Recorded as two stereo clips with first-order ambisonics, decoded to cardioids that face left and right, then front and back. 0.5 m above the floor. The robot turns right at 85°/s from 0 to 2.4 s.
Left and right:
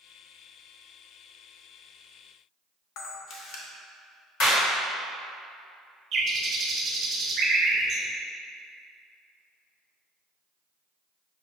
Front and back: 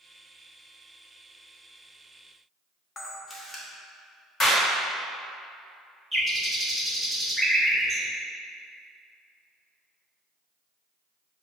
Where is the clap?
70° left, 1.3 m.